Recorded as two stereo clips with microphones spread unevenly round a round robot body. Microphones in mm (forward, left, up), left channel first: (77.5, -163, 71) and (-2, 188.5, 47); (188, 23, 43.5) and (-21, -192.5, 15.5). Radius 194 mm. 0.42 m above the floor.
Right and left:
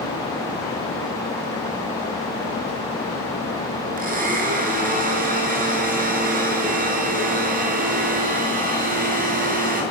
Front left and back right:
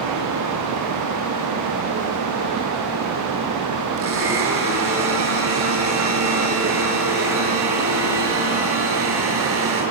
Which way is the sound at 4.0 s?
170° left.